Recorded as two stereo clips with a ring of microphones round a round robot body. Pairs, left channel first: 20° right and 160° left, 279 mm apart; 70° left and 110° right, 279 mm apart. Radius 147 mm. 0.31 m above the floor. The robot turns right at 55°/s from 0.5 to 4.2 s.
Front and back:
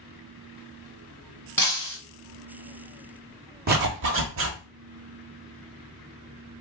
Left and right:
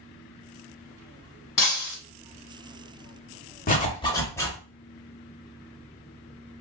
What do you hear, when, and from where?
1.6 s breaking glass: 60° left, 1.3 m; by 2.0 s 85° left, 1.3 m
3.7 s a zipper: 115° left, 1.0 m; by 4.6 s 145° left, 1.0 m